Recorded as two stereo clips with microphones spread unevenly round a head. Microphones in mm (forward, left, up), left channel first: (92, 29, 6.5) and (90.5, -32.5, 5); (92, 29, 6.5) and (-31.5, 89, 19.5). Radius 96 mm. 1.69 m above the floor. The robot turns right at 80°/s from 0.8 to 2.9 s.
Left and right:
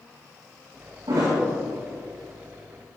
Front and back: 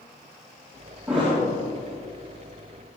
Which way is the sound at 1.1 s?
125° right.